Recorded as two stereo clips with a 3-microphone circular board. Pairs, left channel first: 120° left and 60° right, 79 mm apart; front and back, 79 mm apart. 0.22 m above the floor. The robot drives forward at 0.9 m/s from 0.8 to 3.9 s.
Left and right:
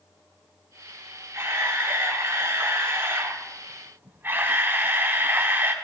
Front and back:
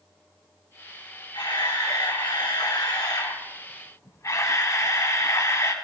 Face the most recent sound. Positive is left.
turn(degrees=-15)